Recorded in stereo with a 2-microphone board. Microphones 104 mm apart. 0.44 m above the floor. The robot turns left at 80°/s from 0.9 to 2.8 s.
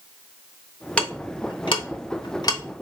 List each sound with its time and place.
1.0 s ticking: 10° left (ahead or behind), 0.8 m; by 2.6 s 30° left (ahead or behind), 0.8 m